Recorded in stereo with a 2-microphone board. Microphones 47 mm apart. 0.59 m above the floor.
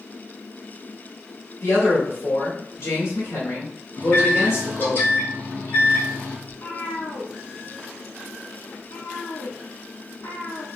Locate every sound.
1.6 s a man speaking: 65° left (ahead or behind), 2 m
4.0 s a microwave: 55° left (ahead or behind), 2.5 m
6.5 s a cat meowing: 80° left, 2 m